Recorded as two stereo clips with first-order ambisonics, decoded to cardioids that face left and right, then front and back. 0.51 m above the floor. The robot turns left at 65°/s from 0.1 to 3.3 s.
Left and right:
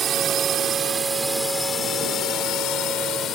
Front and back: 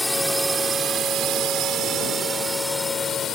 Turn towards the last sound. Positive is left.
turn(degrees=45)